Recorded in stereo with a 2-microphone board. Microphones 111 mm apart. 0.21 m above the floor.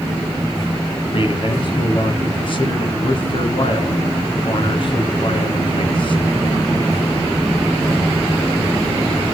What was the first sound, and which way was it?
A man speaking, 50° left (ahead or behind).